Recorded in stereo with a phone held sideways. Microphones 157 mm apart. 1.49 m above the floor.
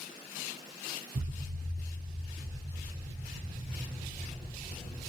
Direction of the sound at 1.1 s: 60° right (ahead or behind).